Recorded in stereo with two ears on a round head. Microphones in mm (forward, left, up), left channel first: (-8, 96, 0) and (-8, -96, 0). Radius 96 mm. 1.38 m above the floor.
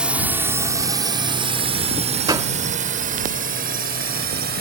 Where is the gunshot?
20° right (ahead or behind).